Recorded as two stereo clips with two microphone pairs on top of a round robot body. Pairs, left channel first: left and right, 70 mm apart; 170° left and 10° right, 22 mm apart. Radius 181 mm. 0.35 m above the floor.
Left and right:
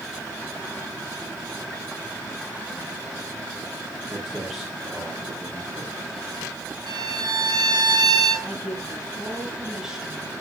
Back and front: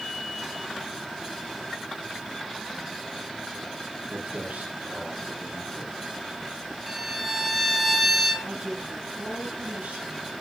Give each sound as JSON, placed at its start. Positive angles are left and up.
{"t": 4.1, "sound": "footsteps", "azimuth_deg": 0, "distance_m": 7.0}
{"t": 6.9, "sound": "a violin", "azimuth_deg": -100, "distance_m": 4.5}
{"t": 8.4, "sound": "a woman speaking", "azimuth_deg": -5, "distance_m": 8.0}